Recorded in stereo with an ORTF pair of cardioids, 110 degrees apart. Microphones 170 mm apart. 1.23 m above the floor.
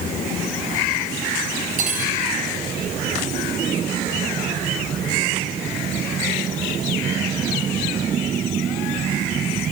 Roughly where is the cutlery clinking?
Ahead right.